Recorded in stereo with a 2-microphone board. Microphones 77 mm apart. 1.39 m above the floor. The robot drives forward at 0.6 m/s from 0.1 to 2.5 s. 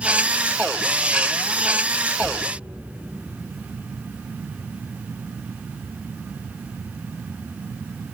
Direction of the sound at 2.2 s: 80° right.